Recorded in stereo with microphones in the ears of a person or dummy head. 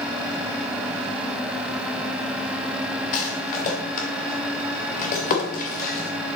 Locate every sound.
3.1 s a rattle: 40° left (ahead or behind), 2.5 m